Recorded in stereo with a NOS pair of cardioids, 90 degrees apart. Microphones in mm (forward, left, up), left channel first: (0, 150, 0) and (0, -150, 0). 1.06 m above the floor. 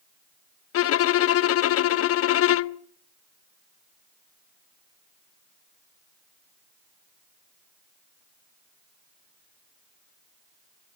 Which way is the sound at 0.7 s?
50° left.